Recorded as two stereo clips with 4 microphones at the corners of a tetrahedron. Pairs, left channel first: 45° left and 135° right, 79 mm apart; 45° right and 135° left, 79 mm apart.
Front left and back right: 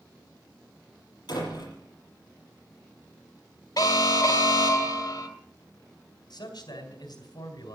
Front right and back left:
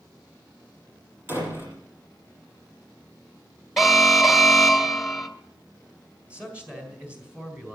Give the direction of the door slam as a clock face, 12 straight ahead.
10 o'clock.